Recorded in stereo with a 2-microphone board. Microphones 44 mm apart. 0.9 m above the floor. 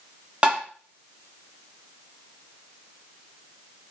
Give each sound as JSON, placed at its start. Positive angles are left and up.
{"t": 0.4, "sound": "tapping", "side_deg": -25, "distance_m": 0.6}